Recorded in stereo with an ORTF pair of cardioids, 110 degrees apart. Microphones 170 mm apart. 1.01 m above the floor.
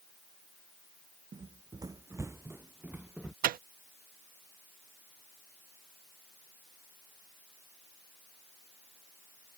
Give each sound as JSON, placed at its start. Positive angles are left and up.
{"t": 1.3, "sound": "running footsteps", "azimuth_deg": -30}
{"t": 3.4, "sound": "a microwave", "azimuth_deg": -60}